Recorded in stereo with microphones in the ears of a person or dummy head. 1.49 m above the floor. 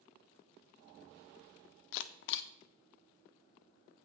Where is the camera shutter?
60° left (ahead or behind), 0.5 m.